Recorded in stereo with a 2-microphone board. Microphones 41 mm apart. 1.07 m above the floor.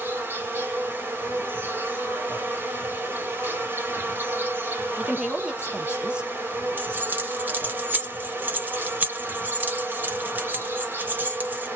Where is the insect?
60° right (ahead or behind), 1.4 m.